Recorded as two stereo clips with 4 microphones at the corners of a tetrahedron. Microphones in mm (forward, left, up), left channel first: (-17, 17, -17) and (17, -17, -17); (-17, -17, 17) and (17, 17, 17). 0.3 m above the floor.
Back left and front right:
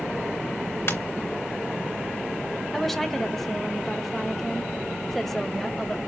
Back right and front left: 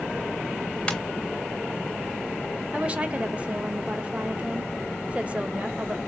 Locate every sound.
0.9 s a ringtone: 155° left, 2.5 m
2.7 s a woman speaking: 55° left, 1.0 m